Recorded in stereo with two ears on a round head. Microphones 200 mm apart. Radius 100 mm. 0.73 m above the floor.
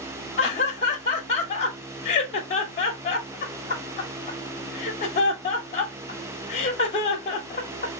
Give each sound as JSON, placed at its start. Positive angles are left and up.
{"t": 0.4, "sound": "laughter", "side_deg": 30, "distance_m": 0.8}